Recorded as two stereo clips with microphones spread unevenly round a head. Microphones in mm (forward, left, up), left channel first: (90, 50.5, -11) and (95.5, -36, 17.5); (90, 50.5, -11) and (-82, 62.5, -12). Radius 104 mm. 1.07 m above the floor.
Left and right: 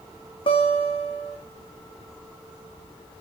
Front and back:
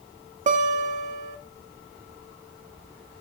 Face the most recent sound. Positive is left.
turn(degrees=130)